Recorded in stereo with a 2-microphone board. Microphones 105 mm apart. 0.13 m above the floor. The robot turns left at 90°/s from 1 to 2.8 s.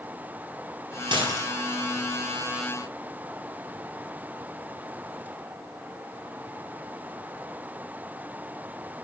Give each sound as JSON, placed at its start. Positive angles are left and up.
{"t": 1.1, "sound": "dishes clattering", "azimuth_deg": -110, "distance_m": 2.0}